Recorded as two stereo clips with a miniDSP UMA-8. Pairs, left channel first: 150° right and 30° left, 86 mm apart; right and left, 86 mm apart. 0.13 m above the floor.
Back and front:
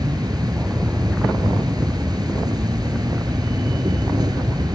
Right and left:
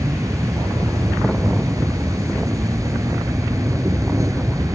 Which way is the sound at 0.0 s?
50° left.